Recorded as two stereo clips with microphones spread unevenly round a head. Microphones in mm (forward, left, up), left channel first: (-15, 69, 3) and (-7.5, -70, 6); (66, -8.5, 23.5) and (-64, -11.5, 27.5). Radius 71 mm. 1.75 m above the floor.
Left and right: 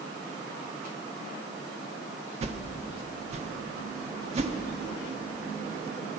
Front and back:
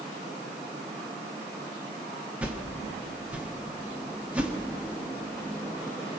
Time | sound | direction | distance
2.4 | a whoosh | 105° right | 1.5 m